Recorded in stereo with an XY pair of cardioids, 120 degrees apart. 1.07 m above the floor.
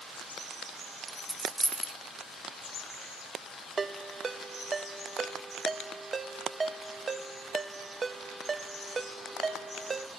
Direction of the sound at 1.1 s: 10° right.